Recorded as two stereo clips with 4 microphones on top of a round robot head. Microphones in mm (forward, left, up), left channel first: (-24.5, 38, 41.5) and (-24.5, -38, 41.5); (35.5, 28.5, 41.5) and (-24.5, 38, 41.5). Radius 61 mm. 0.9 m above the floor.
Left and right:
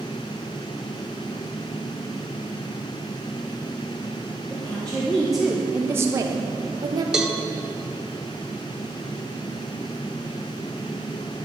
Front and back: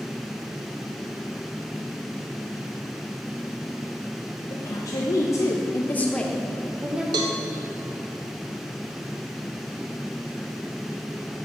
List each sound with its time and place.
4.5 s a woman speaking: 20° left, 1.2 m; by 7.0 s 115° right, 1.0 m
7.1 s a cowbell: 175° right, 0.5 m